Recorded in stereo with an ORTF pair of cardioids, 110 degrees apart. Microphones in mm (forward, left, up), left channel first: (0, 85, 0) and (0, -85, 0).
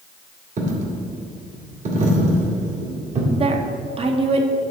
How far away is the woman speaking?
About 1.3 m.